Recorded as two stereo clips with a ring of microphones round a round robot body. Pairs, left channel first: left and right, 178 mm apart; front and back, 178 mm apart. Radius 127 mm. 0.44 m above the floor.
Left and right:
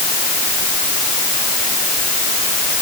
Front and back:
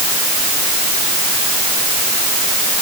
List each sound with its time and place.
Only background noise.